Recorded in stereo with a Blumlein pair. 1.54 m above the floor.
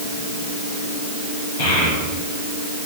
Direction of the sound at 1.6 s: 60° left.